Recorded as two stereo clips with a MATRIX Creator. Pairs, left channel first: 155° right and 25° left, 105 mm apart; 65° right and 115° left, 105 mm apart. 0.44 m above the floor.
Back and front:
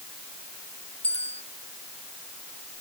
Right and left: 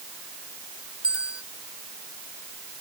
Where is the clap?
No clap in this recording.